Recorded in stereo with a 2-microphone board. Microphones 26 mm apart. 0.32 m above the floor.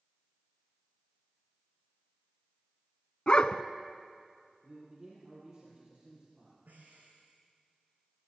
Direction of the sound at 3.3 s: 40° left (ahead or behind).